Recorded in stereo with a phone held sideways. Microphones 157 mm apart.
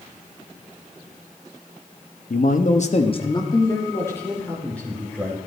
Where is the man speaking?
60° left (ahead or behind), 1.1 m; by 5.4 s 5° left (ahead or behind), 4 m.